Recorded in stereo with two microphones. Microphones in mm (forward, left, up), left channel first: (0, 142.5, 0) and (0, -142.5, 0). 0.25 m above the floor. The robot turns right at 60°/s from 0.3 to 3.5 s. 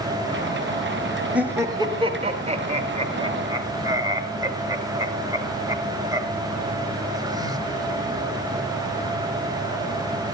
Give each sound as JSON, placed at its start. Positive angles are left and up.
{"t": 1.3, "sound": "laughter", "side_deg": -5, "distance_m": 1.2}